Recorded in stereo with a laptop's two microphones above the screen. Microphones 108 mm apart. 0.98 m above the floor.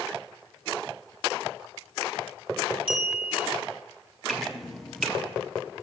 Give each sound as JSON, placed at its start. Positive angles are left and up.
{"t": 2.9, "sound": "a clink", "side_deg": -55, "distance_m": 1.4}
{"t": 4.3, "sound": "dripping", "side_deg": 0, "distance_m": 0.5}